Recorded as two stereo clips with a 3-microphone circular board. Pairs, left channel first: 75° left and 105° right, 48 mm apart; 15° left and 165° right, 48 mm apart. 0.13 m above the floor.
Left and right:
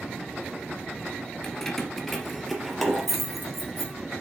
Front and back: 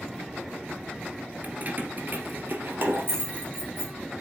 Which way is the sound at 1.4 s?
150° left.